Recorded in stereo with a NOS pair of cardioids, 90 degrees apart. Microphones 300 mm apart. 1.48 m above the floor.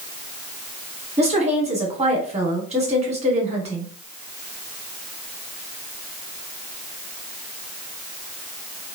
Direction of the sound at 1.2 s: 20° right.